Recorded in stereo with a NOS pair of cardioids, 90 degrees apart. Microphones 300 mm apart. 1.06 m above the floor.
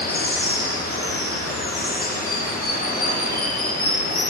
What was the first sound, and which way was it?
Running water, 30° left.